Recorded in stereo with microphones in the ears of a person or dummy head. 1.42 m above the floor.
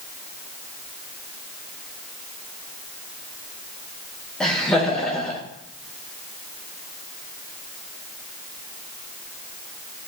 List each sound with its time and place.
4.4 s laughter: 5° left (ahead or behind), 1.0 m